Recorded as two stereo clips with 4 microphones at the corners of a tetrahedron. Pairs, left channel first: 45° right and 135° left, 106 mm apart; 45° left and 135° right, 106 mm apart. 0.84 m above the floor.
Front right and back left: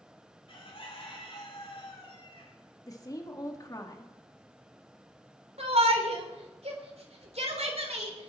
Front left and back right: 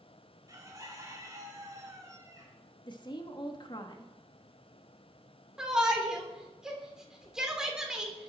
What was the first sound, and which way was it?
A bird, 75° right.